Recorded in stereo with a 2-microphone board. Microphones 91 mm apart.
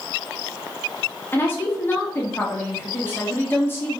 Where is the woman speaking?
25° left (ahead or behind), 0.9 m.